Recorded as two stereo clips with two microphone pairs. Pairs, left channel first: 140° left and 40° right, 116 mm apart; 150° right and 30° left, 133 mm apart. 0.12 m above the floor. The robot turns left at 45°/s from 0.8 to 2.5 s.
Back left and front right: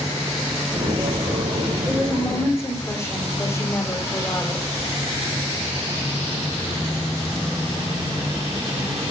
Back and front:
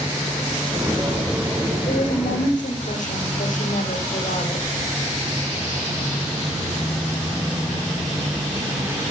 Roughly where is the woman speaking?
Behind right.